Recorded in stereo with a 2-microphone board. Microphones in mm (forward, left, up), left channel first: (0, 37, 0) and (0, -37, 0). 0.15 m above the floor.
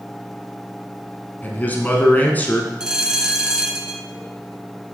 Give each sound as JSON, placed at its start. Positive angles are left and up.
{"t": 1.4, "sound": "a man speaking", "side_deg": 25, "distance_m": 1.1}
{"t": 2.8, "sound": "a bell", "side_deg": -10, "distance_m": 0.6}